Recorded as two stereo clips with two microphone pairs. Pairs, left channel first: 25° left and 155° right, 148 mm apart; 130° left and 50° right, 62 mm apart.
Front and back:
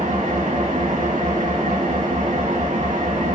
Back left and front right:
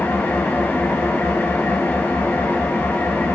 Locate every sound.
0.0 s an engine running: 175° right, 5.5 m